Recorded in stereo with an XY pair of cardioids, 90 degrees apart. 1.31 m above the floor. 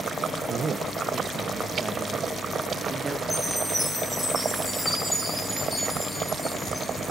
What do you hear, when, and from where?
0.5 s a man speaking: 60° right, 0.9 m; by 3.2 s 30° right, 2.5 m
3.3 s a chime: 15° left, 6.5 m